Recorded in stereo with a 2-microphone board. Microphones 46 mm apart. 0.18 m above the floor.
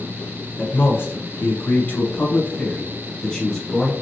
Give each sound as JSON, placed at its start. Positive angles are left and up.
{"t": 0.6, "sound": "a man speaking", "side_deg": 45, "distance_m": 1.8}